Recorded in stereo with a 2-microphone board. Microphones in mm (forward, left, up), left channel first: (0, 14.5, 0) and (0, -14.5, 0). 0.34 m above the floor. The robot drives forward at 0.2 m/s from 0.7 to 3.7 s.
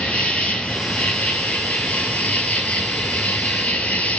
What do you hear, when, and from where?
0.0 s an insect: 55° left (ahead or behind), 0.9 m; by 4.2 s 75° left (ahead or behind), 0.8 m